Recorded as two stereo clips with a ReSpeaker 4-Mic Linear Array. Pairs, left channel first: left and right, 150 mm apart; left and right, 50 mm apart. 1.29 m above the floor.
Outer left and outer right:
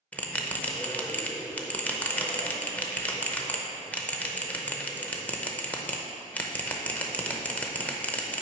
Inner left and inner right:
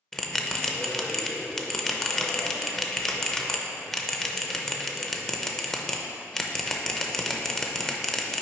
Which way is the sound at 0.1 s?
10° left (ahead or behind).